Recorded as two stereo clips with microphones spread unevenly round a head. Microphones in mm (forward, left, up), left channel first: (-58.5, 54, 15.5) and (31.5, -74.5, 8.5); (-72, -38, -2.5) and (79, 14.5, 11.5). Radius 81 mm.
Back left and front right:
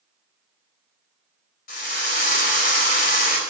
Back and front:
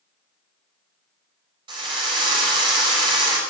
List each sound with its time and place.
1.7 s a drill: 85° left, 4.5 m